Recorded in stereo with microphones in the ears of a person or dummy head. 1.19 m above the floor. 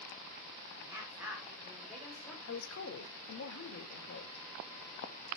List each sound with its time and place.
0.8 s a woman speaking: 10° right (ahead or behind), 4 m; by 2.4 s 5° left (ahead or behind), 4 m
2.5 s a woman speaking: 75° left (ahead or behind), 2.0 m